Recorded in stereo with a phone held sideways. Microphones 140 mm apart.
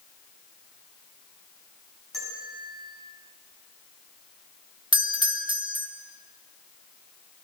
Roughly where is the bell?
Centre.